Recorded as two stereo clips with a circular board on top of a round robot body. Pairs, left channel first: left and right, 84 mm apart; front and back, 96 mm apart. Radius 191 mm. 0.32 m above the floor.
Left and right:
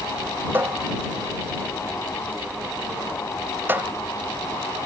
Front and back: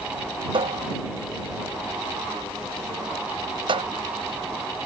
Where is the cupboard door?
155° right.